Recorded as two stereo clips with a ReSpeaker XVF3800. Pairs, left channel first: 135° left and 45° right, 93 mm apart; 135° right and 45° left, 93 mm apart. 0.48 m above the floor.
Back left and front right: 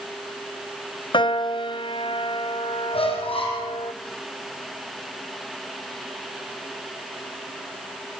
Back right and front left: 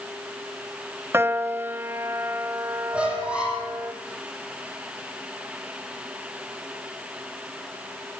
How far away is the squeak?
About 7 m.